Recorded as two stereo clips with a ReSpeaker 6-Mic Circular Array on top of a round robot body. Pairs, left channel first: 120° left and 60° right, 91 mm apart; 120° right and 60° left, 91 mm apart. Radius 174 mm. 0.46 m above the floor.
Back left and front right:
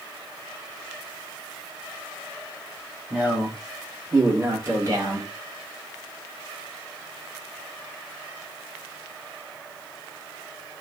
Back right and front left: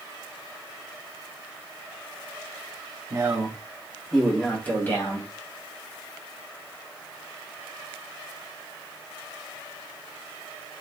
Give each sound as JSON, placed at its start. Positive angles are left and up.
{"t": 3.1, "sound": "a man speaking", "azimuth_deg": 10, "distance_m": 1.6}